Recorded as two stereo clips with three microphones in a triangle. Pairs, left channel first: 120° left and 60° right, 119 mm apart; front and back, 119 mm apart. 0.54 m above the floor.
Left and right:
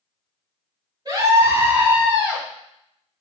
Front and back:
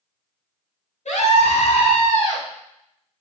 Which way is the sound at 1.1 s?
5° right.